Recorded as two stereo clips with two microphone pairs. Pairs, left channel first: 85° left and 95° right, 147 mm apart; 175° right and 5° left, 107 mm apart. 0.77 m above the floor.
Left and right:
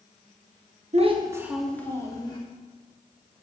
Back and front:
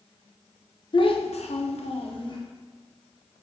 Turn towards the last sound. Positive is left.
turn(degrees=145)